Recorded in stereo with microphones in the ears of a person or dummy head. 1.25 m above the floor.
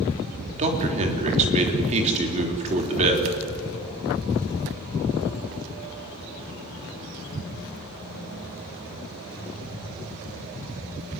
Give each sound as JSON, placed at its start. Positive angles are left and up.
{"t": 0.6, "sound": "a man speaking", "side_deg": -35, "distance_m": 3.5}